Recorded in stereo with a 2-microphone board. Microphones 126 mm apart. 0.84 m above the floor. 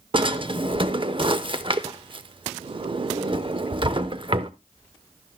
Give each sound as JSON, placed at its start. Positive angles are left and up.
{"t": 0.1, "sound": "a drawer", "side_deg": -40, "distance_m": 0.6}